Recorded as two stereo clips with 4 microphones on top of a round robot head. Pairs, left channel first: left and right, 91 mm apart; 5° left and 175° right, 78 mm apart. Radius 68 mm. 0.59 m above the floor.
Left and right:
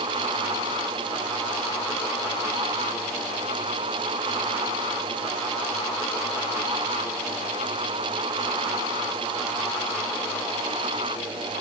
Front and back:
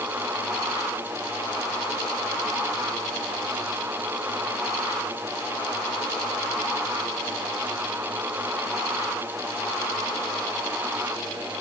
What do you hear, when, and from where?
Only background noise.